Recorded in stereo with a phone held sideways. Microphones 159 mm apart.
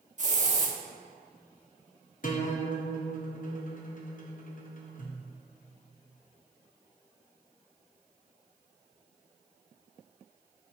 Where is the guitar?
55° left (ahead or behind), 0.9 m.